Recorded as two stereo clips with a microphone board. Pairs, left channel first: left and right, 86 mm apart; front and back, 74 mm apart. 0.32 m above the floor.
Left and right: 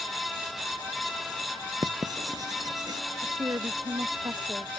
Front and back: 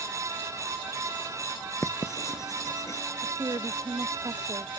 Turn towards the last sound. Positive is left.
turn(degrees=-145)